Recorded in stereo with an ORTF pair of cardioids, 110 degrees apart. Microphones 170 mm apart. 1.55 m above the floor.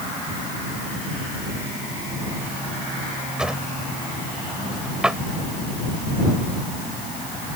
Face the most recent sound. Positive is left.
turn(degrees=-5)